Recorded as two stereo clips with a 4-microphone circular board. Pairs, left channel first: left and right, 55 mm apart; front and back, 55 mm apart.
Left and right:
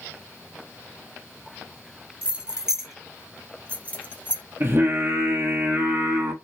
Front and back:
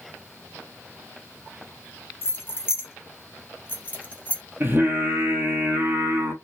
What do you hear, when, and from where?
2.2 s keys jangling: 30° right, 1.8 m; by 4.4 s 60° left, 1.7 m
4.6 s singing: 135° right, 1.0 m